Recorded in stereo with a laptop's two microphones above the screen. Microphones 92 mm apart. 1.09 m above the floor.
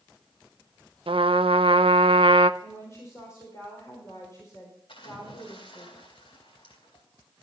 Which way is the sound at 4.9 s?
80° left.